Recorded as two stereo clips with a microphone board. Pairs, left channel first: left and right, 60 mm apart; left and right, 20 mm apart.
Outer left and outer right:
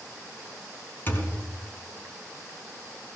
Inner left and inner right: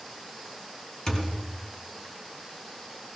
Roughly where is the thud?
Left.